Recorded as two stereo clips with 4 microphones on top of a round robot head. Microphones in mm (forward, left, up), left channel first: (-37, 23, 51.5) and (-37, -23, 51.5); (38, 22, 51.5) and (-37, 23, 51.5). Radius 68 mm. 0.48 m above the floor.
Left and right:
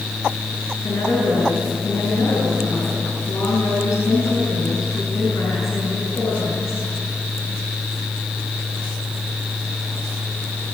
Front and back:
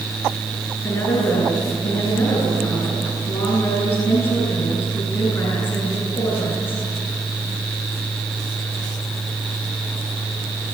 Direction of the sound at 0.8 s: 60° left.